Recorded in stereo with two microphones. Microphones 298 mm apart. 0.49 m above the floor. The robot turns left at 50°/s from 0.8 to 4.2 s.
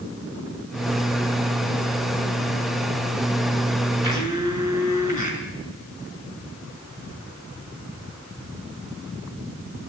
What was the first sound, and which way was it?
A blender, 70° right (ahead or behind).